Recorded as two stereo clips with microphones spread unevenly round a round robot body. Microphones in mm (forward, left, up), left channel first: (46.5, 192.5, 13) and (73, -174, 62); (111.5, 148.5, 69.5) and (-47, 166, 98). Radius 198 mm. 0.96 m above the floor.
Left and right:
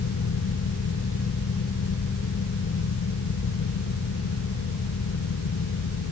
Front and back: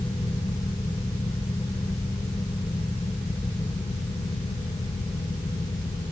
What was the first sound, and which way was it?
Only background noise.